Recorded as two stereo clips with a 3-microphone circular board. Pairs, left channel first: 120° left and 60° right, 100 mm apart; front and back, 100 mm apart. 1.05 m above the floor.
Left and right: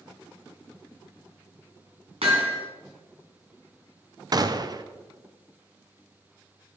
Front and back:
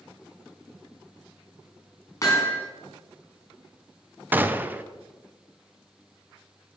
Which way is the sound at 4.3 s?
105° right.